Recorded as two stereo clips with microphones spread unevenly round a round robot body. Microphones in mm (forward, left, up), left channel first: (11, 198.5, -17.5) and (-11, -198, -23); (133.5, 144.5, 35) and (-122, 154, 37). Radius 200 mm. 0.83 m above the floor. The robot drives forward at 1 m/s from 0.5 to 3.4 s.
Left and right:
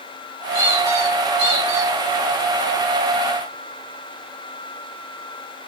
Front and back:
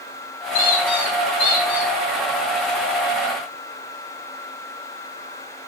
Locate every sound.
0.5 s a squeak: 40° right, 4 m; by 1.9 s 55° right, 3 m